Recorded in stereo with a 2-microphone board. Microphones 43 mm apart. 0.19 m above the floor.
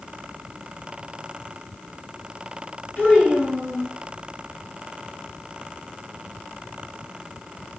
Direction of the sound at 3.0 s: 55° left (ahead or behind).